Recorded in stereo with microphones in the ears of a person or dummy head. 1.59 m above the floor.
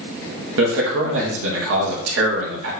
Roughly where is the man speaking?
Right.